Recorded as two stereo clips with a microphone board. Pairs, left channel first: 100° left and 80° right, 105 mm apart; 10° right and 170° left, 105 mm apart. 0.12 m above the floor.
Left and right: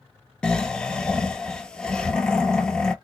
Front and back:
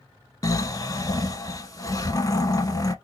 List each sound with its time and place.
0.4 s snoring: 25° left, 0.5 m